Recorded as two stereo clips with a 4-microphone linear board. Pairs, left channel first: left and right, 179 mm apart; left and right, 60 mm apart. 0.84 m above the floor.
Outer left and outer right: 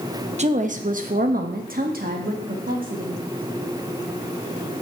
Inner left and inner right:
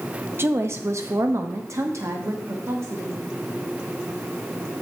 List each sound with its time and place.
0.4 s a woman speaking: 40° right (ahead or behind), 0.9 m; by 3.2 s 50° right (ahead or behind), 1.9 m